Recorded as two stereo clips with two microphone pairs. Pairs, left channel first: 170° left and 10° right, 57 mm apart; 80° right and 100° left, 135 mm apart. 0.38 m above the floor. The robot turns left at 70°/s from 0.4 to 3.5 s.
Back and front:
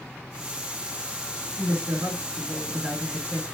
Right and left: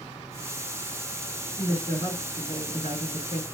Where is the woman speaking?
Straight ahead, 4.5 m; by 3.4 s 130° right, 4.5 m.